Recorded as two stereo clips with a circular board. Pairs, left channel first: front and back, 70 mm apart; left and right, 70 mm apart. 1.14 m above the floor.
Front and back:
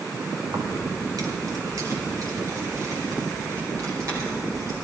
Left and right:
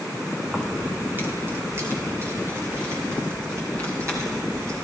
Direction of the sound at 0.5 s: 170° right.